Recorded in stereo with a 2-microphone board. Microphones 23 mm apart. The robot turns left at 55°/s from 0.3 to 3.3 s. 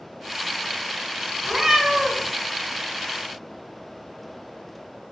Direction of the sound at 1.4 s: 110° right.